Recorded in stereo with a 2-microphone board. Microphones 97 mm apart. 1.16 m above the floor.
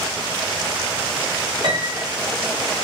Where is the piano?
65° right (ahead or behind), 1.4 m.